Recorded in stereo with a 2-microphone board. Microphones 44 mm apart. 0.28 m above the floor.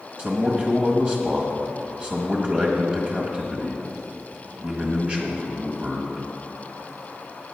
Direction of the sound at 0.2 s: 30° right (ahead or behind).